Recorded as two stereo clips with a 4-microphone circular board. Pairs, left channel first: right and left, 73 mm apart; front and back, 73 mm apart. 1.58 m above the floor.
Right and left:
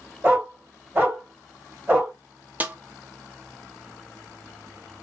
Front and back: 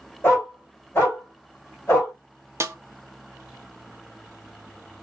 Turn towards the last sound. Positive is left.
turn(degrees=150)